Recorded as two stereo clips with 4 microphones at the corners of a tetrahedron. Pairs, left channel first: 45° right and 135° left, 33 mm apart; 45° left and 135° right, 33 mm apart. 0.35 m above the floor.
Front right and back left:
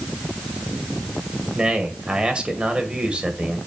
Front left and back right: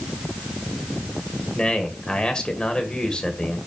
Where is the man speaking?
95° left, 1.7 m.